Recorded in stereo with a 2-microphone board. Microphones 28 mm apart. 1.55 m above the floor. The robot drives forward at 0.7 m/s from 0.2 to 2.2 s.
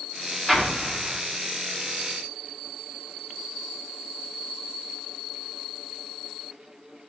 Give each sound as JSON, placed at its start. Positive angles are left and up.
{"t": 0.5, "sound": "an explosion", "side_deg": -5, "distance_m": 1.3}